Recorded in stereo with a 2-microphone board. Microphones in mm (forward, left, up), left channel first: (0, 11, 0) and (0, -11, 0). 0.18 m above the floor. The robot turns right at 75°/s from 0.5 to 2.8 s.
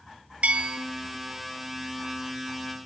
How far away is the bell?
About 0.6 m.